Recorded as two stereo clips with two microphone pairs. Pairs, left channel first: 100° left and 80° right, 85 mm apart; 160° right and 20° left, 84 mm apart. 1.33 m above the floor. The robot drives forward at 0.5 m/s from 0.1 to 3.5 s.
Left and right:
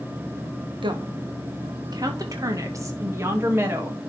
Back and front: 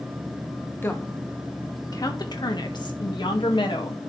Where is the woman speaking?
95° right, 1.3 m; by 4.0 s 140° right, 2.0 m.